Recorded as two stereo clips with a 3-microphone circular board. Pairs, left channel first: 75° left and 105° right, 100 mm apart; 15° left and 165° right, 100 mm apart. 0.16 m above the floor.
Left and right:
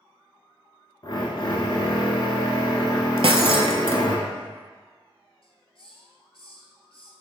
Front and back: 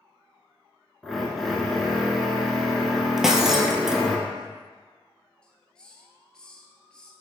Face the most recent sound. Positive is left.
turn(degrees=95)